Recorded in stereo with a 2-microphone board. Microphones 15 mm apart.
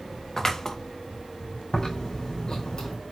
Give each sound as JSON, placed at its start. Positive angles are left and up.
{"t": 0.4, "sound": "scissors", "side_deg": 25, "distance_m": 0.6}
{"t": 1.7, "sound": "chewing", "side_deg": 55, "distance_m": 3.0}